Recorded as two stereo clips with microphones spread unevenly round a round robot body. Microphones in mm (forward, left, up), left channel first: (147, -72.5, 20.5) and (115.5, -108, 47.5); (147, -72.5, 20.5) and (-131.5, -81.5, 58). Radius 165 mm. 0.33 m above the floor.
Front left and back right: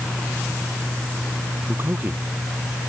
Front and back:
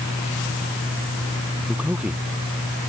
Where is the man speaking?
95° right.